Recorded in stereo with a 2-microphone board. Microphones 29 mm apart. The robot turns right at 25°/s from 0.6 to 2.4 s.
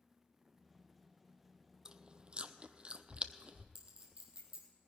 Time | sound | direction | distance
1.9 | chewing | 25° right (ahead or behind) | 0.6 m
3.8 | a clink | 40° right (ahead or behind) | 3 m